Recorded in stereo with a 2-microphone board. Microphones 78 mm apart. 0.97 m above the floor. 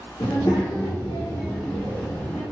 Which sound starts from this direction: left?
A child speaking, at 0.2 s.